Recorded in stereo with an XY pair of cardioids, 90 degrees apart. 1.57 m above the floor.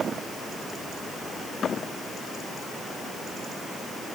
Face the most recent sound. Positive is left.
No sound to turn to.